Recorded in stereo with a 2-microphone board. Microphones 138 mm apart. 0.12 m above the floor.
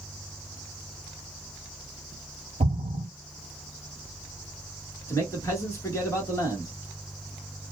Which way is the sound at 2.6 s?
50° right (ahead or behind).